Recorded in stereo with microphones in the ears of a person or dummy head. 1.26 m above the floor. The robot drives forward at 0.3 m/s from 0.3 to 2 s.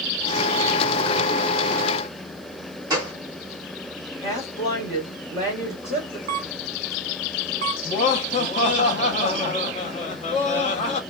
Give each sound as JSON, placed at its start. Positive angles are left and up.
{"t": 2.9, "sound": "a gunshot", "side_deg": -20, "distance_m": 1.2}
{"t": 4.2, "sound": "a woman speaking", "side_deg": 30, "distance_m": 1.5}
{"t": 6.3, "sound": "a camera shutter", "side_deg": -50, "distance_m": 0.6}
{"t": 7.8, "sound": "laughter", "side_deg": 35, "distance_m": 0.6}